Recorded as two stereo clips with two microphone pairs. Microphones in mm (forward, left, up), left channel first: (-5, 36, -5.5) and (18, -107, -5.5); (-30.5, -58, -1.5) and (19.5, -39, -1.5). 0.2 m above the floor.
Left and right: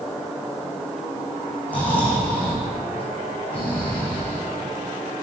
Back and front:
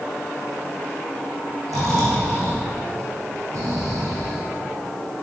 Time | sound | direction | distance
1.7 | snoring | 20° left | 3 m